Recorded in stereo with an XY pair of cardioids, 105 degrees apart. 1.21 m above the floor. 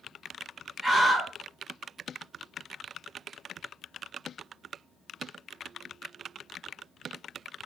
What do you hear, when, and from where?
0.8 s a scream: 5° right, 0.9 m